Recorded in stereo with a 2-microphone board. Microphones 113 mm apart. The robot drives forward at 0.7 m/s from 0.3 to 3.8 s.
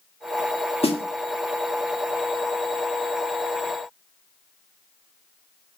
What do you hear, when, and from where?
0.8 s a snare drum: 60° left (ahead or behind), 1.5 m; by 1.0 s 55° left (ahead or behind), 1.5 m